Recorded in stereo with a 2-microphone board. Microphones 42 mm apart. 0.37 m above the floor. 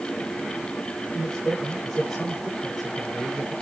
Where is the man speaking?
5° left (ahead or behind), 8 m.